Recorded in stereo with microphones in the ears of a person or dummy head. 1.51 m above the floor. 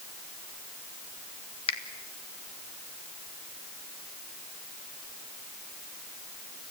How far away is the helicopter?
No helicopter in this recording.